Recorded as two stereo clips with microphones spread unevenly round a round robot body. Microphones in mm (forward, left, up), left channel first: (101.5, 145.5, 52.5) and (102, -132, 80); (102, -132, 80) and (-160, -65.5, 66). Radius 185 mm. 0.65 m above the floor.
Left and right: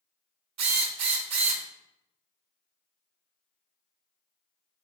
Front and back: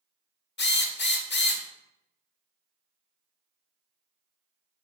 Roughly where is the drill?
Ahead right.